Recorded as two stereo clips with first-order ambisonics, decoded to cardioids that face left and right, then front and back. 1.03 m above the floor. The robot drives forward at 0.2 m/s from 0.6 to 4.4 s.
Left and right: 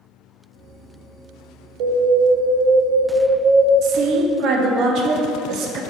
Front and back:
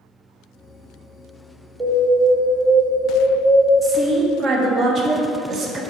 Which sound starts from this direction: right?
An alarm, at 1.8 s.